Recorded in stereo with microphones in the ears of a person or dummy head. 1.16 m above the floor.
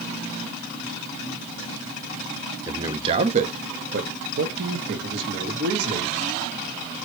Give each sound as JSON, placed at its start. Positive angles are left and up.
{"t": 2.7, "sound": "a man speaking", "side_deg": -15, "distance_m": 0.6}